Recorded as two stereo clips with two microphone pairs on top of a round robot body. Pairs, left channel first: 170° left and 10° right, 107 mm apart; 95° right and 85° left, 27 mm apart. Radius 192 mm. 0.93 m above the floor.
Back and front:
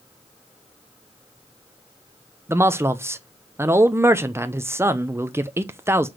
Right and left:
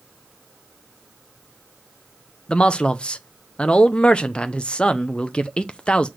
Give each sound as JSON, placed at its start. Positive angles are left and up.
{"t": 2.5, "sound": "a man speaking", "azimuth_deg": -80, "distance_m": 0.9}